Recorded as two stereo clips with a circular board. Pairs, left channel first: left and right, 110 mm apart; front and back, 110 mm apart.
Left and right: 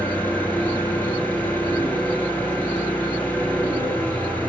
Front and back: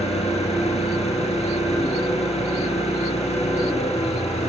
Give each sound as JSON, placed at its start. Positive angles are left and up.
{"t": 0.0, "sound": "an engine running", "azimuth_deg": 20, "distance_m": 3.0}